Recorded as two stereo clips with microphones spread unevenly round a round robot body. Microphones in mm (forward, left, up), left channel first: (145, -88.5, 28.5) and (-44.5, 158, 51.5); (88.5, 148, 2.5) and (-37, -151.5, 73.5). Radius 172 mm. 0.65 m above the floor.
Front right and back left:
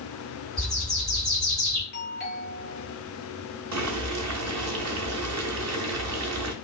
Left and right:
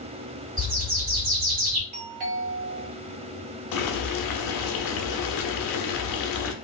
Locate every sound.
0.6 s a bird: 140° right, 2 m
1.9 s a doorbell: 75° right, 1.8 m
3.7 s boiling: 85° left, 0.7 m